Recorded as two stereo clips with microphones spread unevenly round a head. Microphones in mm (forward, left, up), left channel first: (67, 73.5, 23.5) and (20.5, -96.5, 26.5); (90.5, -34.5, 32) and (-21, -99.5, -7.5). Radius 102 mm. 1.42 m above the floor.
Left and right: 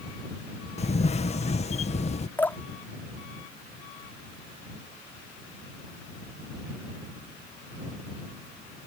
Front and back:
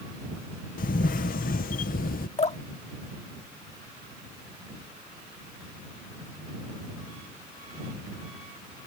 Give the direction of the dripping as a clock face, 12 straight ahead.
12 o'clock.